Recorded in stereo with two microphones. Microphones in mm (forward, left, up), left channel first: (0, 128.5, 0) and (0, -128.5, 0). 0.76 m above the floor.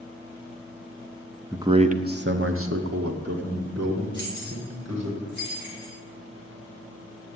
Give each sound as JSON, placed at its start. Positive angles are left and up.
{"t": 1.5, "sound": "a man speaking", "side_deg": -10, "distance_m": 0.8}
{"t": 4.1, "sound": "keys jangling", "side_deg": -50, "distance_m": 5.0}